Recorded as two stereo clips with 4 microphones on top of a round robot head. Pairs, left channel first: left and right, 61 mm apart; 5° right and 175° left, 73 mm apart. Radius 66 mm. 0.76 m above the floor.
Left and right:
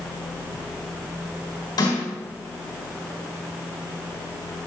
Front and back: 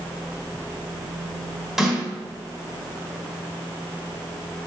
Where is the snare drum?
90° left, 4 m.